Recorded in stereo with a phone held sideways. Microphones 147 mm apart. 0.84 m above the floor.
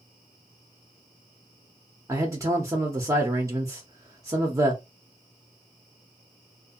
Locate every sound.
2.1 s a man speaking: 20° right (ahead or behind), 0.5 m